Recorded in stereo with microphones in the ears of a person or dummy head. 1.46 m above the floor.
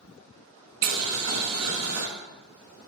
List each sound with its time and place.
0.8 s boiling: 80° right, 0.9 m